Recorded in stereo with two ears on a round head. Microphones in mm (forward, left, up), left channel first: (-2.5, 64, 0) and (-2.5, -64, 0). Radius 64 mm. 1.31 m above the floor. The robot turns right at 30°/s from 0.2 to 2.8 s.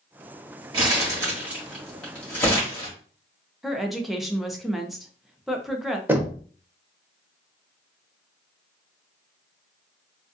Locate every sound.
0.7 s crumpling: 35° right (ahead or behind), 2 m; by 2.9 s 30° left (ahead or behind), 2 m
3.6 s a woman speaking: centre (ahead or behind), 0.7 m
6.1 s knocking: 15° right (ahead or behind), 0.8 m